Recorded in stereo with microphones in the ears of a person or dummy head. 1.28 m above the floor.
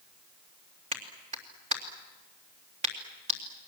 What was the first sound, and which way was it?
A clap, 40° right (ahead or behind).